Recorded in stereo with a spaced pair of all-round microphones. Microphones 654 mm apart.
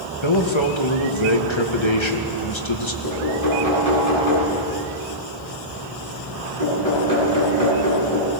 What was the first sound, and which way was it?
A man speaking, 45° left (ahead or behind).